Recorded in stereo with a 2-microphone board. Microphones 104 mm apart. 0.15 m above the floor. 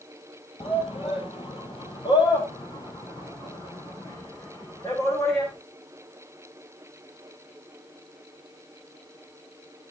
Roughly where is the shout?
Left.